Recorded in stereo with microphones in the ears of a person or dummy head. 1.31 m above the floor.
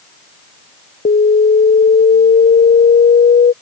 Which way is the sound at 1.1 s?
35° left (ahead or behind).